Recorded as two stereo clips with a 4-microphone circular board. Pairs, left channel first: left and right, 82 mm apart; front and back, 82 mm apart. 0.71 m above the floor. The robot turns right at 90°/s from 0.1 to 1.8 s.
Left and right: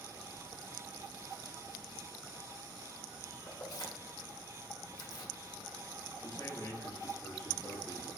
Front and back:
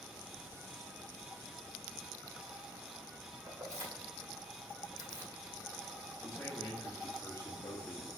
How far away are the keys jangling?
About 1.3 m.